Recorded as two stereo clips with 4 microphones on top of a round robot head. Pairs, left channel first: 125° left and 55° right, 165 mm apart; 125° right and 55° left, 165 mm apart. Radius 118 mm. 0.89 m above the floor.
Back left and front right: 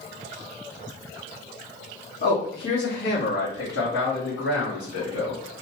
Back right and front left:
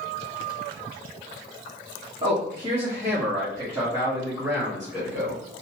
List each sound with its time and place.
2.2 s a man speaking: 115° left, 1.3 m; by 5.4 s 135° left, 3 m